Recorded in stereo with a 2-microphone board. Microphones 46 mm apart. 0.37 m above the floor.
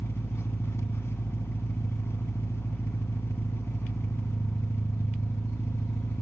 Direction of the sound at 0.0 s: 75° left (ahead or behind).